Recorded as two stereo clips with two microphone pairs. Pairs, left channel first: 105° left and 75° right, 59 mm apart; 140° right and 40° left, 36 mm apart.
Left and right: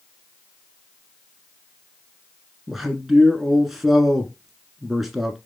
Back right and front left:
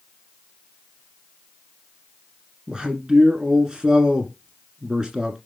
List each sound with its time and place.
2.7 s a man speaking: 10° left, 1.4 m